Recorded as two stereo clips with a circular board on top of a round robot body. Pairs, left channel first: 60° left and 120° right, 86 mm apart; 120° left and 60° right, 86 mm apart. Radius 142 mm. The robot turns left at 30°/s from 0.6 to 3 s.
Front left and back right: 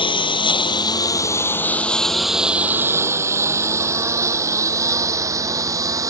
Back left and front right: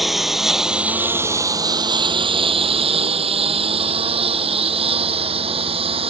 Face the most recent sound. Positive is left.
turn(degrees=-65)